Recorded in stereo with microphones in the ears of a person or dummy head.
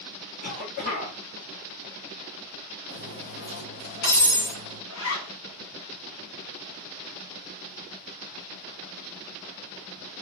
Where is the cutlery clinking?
45° left (ahead or behind), 1.2 m.